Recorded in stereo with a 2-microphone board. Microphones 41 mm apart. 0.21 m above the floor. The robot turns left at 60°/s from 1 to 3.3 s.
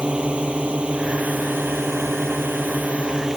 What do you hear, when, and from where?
0.0 s a drone: 25° right; by 3.4 s 165° right